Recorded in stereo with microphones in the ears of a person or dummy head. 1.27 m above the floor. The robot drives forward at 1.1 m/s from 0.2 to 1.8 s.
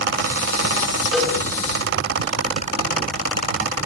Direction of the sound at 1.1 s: Centre (ahead or behind).